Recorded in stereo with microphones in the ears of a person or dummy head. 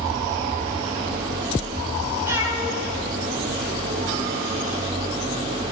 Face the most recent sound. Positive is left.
turn(degrees=-45)  # may be behind; listen again after turning